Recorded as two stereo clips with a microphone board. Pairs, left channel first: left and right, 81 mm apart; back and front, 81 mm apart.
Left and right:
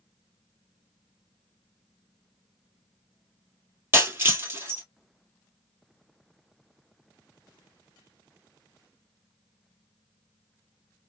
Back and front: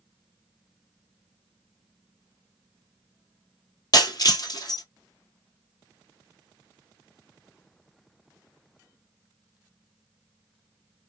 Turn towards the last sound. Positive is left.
turn(degrees=-150)